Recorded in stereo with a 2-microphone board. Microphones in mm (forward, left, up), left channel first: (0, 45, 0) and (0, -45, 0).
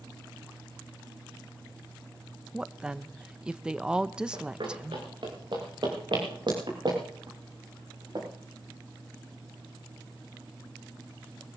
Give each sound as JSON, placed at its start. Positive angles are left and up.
{"t": 2.5, "sound": "a woman speaking", "side_deg": -10, "distance_m": 0.6}
{"t": 4.3, "sound": "running footsteps", "side_deg": -65, "distance_m": 5.5}